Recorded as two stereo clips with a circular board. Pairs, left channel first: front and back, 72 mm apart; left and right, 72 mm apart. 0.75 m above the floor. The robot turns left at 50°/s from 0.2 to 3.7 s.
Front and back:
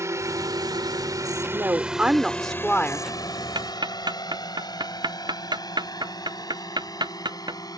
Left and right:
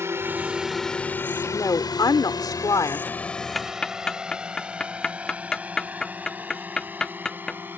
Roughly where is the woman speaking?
Behind left.